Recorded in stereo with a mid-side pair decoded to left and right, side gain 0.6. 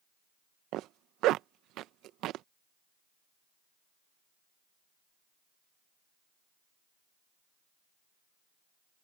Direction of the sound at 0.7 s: 65° right.